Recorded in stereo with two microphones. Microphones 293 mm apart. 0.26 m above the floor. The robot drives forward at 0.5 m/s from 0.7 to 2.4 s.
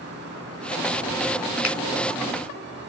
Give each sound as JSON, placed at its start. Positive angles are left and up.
{"t": 1.6, "sound": "a finger snap", "side_deg": 45, "distance_m": 1.7}